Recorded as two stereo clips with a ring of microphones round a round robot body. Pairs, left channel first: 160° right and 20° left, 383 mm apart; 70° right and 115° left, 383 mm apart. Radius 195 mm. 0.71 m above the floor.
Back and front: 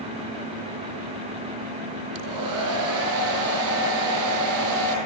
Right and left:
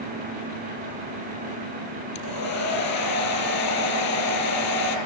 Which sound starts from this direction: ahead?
A hair dryer, at 2.1 s.